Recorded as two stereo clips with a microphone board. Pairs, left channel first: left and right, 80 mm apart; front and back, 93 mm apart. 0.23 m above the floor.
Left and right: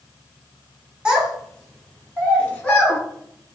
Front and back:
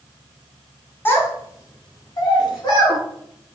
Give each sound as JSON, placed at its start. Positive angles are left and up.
{"t": 1.1, "sound": "a child speaking", "azimuth_deg": -25, "distance_m": 0.7}